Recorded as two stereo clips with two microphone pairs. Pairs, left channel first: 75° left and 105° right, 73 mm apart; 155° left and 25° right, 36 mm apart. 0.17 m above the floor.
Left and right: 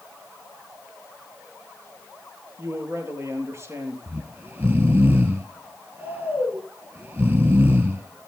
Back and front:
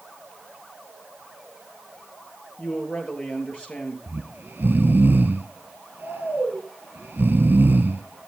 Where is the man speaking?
150° right, 4 m.